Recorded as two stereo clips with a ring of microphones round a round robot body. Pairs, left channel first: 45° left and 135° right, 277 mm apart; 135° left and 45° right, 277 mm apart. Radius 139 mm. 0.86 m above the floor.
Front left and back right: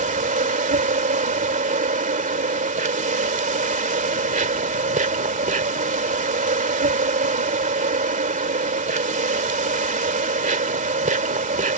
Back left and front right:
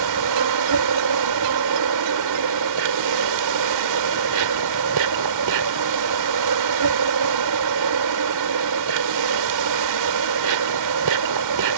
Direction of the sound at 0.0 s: 70° right.